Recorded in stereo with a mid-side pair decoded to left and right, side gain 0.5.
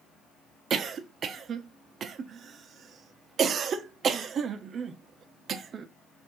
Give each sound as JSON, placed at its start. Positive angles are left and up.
{"t": 0.7, "sound": "a cough", "azimuth_deg": -50, "distance_m": 0.6}